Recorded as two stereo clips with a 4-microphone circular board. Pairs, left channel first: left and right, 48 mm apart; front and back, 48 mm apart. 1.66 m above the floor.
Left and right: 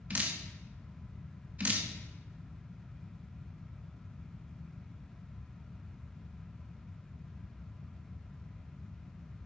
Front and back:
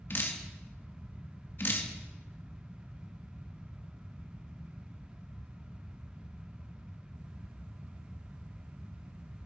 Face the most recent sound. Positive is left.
turn(degrees=-35)